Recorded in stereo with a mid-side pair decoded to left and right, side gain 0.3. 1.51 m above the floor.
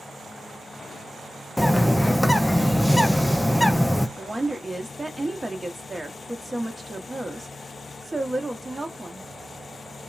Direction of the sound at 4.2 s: 15° right.